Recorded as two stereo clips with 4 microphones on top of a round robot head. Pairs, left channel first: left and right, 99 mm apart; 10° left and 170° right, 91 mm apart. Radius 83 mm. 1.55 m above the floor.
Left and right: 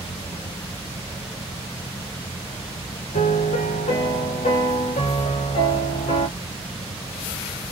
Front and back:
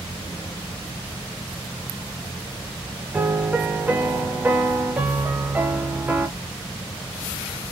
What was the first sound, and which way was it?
A piano, 120° left.